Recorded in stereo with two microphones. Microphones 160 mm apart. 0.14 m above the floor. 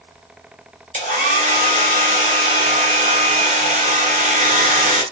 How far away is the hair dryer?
About 1.9 m.